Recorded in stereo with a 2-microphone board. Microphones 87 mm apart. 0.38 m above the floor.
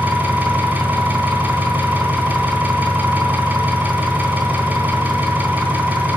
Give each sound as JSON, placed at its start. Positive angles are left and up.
{"t": 0.0, "sound": "an engine running", "side_deg": -20, "distance_m": 3.5}